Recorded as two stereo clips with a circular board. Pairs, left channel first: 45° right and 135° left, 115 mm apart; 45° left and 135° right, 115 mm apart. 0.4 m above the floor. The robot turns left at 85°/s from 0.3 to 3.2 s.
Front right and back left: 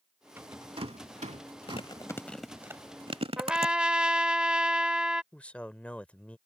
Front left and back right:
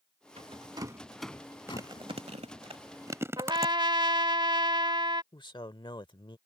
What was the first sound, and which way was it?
A rattle, 155° right.